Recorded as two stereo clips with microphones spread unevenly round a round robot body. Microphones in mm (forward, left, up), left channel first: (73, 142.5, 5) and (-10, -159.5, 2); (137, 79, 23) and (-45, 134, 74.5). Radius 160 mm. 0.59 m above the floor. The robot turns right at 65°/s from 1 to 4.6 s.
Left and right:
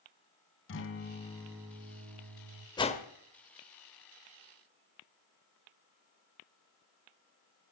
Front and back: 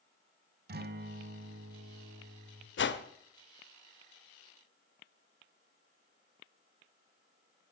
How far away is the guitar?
About 1.5 m.